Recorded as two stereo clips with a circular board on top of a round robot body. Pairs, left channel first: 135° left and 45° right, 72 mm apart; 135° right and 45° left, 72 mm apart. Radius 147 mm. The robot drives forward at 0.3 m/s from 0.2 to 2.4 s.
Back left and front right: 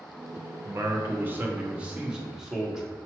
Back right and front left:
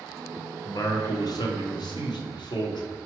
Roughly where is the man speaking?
Right.